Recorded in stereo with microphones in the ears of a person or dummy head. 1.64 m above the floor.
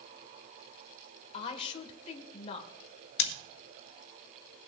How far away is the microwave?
I don't hear a microwave.